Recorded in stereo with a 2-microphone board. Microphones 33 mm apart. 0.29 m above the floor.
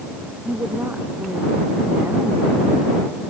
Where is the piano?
No piano in this recording.